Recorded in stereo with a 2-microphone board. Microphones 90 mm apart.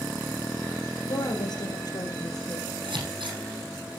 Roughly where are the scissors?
Right.